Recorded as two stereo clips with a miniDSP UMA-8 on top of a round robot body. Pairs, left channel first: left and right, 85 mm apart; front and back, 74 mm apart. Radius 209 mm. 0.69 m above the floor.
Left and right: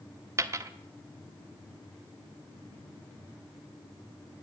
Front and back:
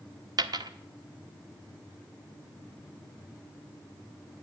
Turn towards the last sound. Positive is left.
turn(degrees=-150)